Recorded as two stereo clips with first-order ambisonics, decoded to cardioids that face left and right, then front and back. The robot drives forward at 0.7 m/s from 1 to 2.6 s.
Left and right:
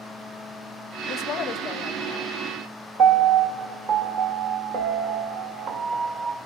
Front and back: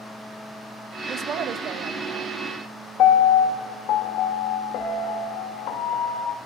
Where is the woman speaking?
115° left, 0.6 m; by 2.4 s 160° left, 1.2 m.